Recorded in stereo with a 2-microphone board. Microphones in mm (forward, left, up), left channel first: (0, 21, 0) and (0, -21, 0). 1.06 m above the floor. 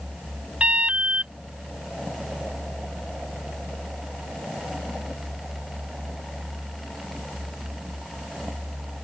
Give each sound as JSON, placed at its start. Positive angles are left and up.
{"t": 0.6, "sound": "an alarm", "side_deg": -25}